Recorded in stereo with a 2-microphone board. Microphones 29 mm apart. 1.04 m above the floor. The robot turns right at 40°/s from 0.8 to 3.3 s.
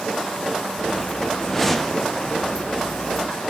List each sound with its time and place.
1.4 s a whoosh: 15° left (ahead or behind), 0.8 m; by 2.1 s 5° right (ahead or behind), 0.8 m